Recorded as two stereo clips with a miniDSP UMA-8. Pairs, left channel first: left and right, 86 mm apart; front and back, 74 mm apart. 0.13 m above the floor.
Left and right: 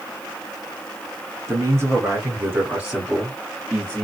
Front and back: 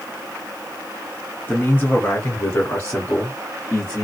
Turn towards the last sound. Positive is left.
turn(degrees=45)